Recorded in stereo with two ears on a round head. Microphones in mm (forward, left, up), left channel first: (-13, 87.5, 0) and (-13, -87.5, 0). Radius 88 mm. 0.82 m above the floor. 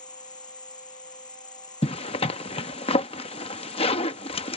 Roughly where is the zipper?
Left.